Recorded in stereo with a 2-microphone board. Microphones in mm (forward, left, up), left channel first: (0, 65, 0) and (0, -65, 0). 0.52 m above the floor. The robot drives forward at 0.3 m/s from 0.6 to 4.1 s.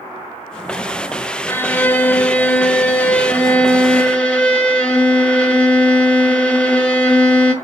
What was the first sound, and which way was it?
A violin, 15° left (ahead or behind).